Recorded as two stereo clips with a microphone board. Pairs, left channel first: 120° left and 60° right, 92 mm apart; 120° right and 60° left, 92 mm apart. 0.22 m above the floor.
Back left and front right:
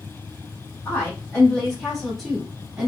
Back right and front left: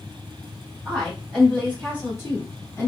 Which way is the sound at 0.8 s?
170° left.